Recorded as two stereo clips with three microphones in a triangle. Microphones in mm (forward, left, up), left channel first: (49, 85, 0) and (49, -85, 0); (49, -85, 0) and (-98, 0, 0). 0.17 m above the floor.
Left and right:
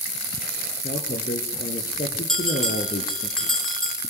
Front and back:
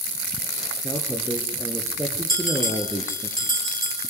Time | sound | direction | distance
0.8 | a man speaking | 75° left | 3.5 m
2.3 | a bell | 5° left | 5 m